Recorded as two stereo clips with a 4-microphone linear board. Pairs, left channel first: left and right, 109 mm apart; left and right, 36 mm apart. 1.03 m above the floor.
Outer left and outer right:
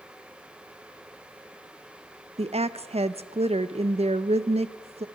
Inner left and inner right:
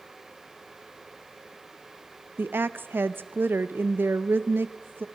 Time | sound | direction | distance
2.4 | a woman speaking | 70° right (ahead or behind) | 0.6 m